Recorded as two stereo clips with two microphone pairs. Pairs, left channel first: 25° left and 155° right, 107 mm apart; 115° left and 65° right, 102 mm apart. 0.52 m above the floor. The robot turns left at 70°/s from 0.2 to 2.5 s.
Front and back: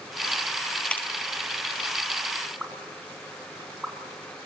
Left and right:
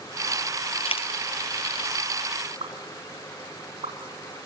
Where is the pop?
75° right, 3.5 m.